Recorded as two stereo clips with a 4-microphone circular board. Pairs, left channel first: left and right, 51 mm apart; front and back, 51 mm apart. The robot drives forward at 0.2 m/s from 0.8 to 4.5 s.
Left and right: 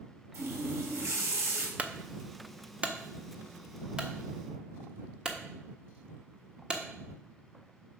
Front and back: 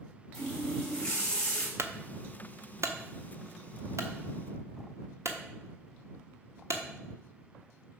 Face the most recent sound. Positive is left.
turn(degrees=-165)